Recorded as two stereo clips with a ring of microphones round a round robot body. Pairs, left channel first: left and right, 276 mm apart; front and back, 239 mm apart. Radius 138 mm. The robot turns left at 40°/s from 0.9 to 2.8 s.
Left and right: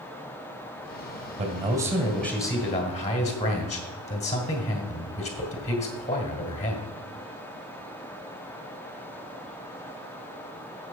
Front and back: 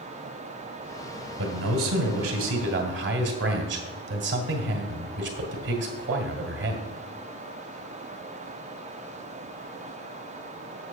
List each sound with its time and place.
1.4 s a man speaking: 150° right, 1.8 m; by 6.9 s 155° left, 1.8 m